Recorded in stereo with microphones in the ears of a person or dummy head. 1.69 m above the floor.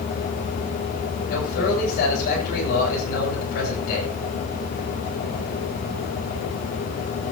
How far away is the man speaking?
About 9.5 m.